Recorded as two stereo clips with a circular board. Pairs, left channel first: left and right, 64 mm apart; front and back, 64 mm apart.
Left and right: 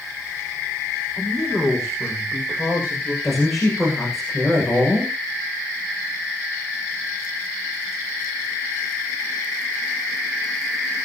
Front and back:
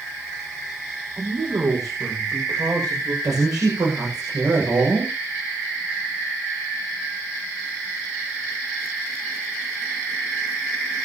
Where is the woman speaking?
Straight behind, 8 m.